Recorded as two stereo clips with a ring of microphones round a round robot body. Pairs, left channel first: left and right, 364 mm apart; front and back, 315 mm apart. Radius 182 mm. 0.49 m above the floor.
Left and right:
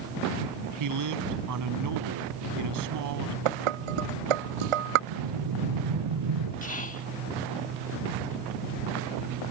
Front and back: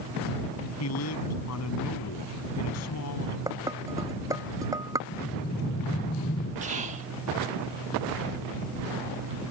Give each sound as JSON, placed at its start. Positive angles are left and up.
{"t": 0.8, "sound": "a man speaking", "azimuth_deg": -50}
{"t": 3.5, "sound": "dishes clattering", "azimuth_deg": -100}
{"t": 5.1, "sound": "breathing", "azimuth_deg": -70}
{"t": 6.6, "sound": "whispering", "azimuth_deg": 135}